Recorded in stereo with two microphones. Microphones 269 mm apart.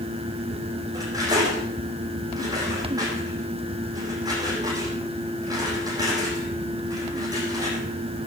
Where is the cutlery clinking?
15° right (ahead or behind), 9 m.